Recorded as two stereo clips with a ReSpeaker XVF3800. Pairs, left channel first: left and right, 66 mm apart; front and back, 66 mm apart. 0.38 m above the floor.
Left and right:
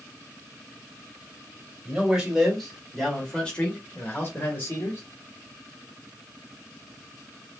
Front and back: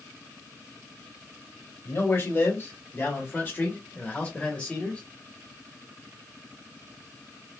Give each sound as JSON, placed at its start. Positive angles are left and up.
{"t": 1.9, "sound": "a man speaking", "azimuth_deg": -20, "distance_m": 1.8}